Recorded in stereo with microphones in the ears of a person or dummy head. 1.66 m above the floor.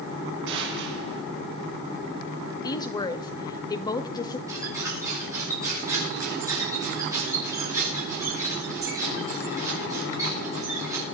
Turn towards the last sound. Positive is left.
turn(degrees=-20)  # may be behind; listen again after turning